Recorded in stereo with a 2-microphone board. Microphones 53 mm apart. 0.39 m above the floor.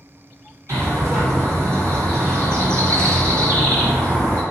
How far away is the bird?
About 1.6 m.